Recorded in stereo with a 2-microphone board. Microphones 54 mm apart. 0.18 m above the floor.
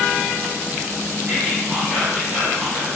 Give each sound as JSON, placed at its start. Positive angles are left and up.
{"t": 1.3, "sound": "whispering", "side_deg": -20, "distance_m": 1.7}